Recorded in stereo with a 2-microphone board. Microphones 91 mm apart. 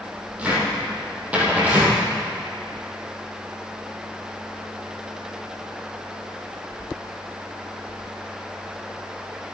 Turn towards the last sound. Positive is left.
turn(degrees=-15)  # may be behind; listen again after turning